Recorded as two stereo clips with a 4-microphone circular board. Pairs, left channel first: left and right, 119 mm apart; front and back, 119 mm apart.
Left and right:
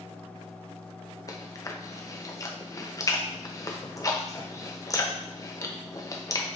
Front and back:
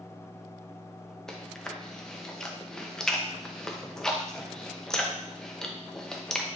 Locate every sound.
1.3 s chewing: 80° left, 0.6 m